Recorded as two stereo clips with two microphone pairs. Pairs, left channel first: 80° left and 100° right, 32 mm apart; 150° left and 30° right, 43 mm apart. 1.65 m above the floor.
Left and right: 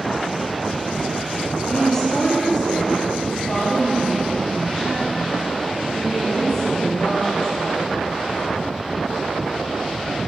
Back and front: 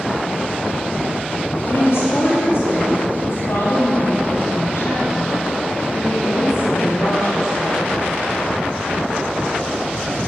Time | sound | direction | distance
1.6 | a woman speaking | 145° left | 3.5 m